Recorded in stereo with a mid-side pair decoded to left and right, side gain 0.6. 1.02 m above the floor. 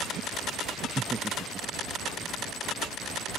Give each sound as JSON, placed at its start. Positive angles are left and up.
{"t": 1.0, "sound": "laughter", "azimuth_deg": -25}